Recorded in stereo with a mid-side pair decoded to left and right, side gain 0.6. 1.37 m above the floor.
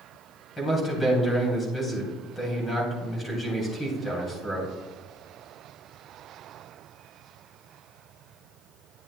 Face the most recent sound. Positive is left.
turn(degrees=20)